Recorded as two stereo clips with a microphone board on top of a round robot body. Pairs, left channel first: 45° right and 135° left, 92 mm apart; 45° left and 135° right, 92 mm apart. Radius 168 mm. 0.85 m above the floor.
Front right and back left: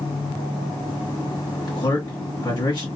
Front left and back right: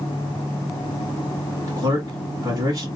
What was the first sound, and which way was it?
A man speaking, 90° right.